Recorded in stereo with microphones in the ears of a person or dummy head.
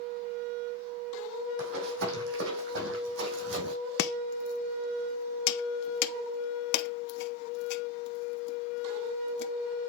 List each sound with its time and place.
1.6 s running footsteps: 65° right (ahead or behind), 3.5 m
4.0 s chopping: 55° left (ahead or behind), 0.6 m